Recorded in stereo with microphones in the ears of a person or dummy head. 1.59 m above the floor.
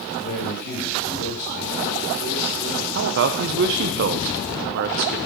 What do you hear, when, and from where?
0.2 s a man speaking: 45° left (ahead or behind), 3.5 m
3.0 s a man speaking: 50° right (ahead or behind), 0.8 m